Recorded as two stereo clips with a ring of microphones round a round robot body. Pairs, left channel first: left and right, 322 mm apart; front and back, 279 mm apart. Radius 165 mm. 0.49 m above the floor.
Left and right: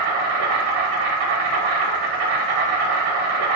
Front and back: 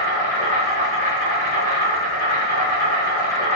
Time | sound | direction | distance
0.0 | an insect | 120° right | 0.7 m